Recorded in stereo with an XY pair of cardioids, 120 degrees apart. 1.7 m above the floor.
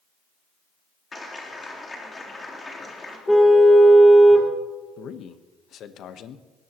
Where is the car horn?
5° left, 2.5 m.